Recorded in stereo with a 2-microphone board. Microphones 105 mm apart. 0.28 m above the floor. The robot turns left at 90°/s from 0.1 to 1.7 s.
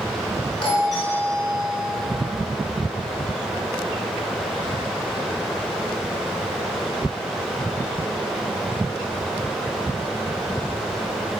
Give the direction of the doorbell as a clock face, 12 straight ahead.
10 o'clock.